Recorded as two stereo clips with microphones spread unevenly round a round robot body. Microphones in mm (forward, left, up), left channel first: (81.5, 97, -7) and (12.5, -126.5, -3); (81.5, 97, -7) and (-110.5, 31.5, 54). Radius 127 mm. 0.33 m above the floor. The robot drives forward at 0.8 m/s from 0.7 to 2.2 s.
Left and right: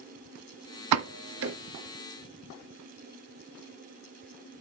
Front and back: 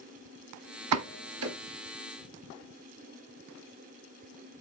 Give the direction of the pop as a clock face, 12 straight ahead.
4 o'clock.